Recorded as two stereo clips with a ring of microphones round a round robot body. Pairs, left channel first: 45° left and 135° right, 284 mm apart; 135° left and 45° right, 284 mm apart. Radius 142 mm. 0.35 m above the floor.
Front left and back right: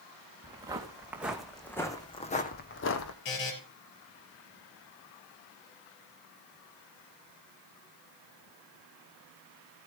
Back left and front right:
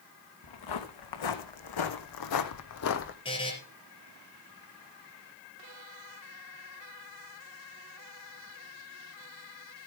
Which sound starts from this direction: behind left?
Footsteps, at 0.4 s.